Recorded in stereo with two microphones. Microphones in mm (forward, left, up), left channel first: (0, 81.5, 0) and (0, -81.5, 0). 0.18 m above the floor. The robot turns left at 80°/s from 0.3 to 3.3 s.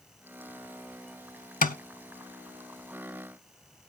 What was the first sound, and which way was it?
Tapping, 55° left (ahead or behind).